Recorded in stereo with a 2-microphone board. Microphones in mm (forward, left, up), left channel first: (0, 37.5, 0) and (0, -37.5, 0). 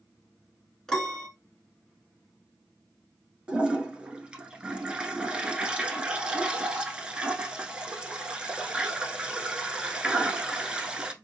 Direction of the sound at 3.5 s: 15° right (ahead or behind).